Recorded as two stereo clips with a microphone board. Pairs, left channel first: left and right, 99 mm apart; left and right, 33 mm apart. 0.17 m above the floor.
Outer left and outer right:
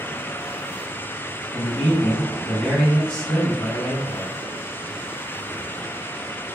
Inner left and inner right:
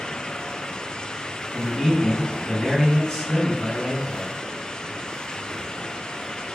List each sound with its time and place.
1.5 s a man speaking: 10° left (ahead or behind), 1.4 m